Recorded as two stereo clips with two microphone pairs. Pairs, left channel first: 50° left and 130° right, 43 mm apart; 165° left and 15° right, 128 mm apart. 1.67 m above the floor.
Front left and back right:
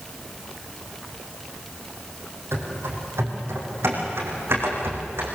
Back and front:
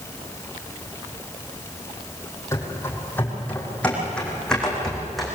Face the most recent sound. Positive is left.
turn(degrees=-105)